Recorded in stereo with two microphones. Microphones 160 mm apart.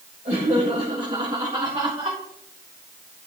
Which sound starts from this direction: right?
Laughter, at 0.2 s.